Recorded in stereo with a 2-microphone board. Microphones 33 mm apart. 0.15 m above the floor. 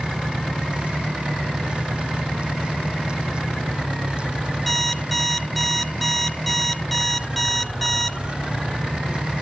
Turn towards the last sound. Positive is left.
turn(degrees=5)  # may be behind; listen again after turning